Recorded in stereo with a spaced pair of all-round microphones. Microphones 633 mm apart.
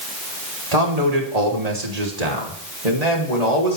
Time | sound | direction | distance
0.7 | a man speaking | 70° right (ahead or behind) | 4 m